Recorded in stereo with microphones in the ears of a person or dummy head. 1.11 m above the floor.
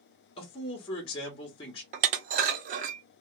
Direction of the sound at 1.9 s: 45° right (ahead or behind).